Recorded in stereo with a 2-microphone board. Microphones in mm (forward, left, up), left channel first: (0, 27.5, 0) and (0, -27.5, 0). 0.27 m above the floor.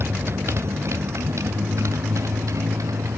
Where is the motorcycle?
50° right (ahead or behind); by 3.2 s 75° right (ahead or behind).